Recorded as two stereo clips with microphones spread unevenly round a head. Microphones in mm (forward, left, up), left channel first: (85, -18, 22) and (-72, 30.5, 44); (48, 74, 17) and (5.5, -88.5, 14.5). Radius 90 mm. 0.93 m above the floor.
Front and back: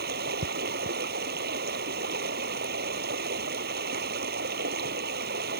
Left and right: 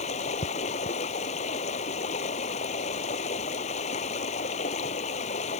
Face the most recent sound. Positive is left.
turn(degrees=130)